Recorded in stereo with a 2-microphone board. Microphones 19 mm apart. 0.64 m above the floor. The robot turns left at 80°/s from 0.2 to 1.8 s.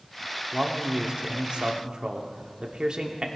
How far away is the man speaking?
About 1.2 m.